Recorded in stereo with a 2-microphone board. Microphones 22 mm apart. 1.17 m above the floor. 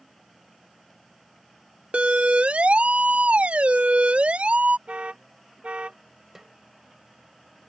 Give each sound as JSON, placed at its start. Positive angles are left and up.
{"t": 1.9, "sound": "a siren", "side_deg": -80}
{"t": 4.9, "sound": "an alarm", "side_deg": -75}
{"t": 6.3, "sound": "a snare drum", "side_deg": -20}